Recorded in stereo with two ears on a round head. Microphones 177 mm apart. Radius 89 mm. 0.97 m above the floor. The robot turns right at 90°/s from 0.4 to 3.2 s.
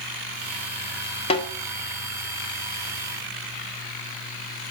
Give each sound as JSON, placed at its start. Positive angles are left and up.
{"t": 1.3, "sound": "a snare drum", "side_deg": 30, "distance_m": 3.0}